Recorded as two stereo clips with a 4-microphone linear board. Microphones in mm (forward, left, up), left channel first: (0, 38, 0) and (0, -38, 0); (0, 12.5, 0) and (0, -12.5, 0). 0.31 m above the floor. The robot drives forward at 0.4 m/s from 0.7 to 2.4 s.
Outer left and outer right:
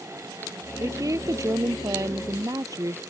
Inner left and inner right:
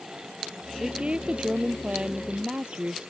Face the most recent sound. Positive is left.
turn(degrees=-50)  # may be behind; listen again after turning